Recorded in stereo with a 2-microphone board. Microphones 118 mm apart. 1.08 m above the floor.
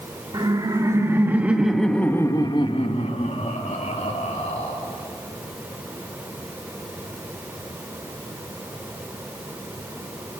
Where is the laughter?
35° right (ahead or behind), 2.5 m; by 4.7 s 85° left, 3.5 m.